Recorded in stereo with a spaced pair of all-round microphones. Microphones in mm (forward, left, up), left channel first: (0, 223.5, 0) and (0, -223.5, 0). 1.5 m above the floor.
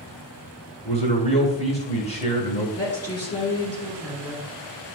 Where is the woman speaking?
30° left (ahead or behind), 3 m.